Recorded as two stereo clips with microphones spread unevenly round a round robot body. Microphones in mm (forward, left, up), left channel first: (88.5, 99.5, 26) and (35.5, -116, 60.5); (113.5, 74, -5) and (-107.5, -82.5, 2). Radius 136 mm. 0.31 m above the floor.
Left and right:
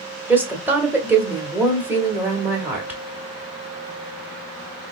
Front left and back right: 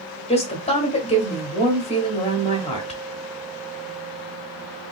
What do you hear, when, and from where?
0.3 s a woman speaking: 15° right, 1.2 m